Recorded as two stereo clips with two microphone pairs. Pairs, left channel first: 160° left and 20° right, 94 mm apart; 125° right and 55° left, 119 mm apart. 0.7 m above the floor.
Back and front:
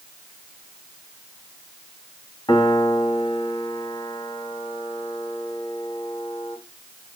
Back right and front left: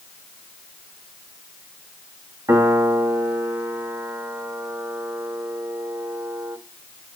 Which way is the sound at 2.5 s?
120° left.